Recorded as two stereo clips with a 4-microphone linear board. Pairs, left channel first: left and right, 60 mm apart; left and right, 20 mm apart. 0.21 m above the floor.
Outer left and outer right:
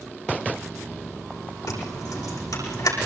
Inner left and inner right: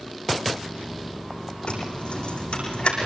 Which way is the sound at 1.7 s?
85° left.